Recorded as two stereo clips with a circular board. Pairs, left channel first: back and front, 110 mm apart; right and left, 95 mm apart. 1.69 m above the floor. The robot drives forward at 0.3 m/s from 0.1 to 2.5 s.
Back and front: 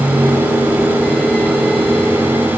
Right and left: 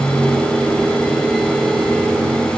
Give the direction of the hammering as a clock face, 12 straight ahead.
No hammering in this recording.